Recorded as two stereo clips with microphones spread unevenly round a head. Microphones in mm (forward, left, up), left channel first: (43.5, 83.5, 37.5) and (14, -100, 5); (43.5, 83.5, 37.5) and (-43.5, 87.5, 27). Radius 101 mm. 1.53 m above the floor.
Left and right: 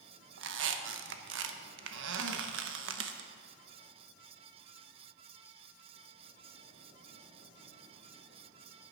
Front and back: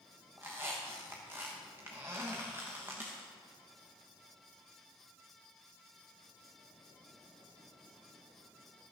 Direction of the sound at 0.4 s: 105° right.